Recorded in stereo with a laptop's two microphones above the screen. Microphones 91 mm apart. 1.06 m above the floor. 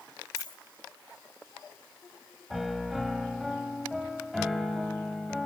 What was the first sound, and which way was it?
A dropped coin, 45° left (ahead or behind).